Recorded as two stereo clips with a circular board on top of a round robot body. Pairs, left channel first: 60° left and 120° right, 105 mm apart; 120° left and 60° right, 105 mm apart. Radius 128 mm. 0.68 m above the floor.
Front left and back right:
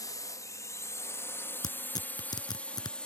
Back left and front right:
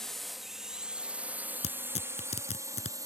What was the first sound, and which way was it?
A drone, 35° left.